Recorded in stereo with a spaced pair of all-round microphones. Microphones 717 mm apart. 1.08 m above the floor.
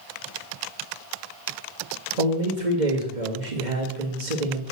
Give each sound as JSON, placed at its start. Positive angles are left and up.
{"t": 2.2, "sound": "a man speaking", "side_deg": -80, "distance_m": 2.0}